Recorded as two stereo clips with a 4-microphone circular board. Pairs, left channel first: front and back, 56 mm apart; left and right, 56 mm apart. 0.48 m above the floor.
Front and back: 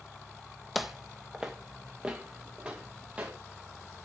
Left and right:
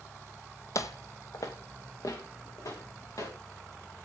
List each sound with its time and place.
0.8 s footsteps: 90° left, 0.9 m; by 3.3 s 110° left, 4 m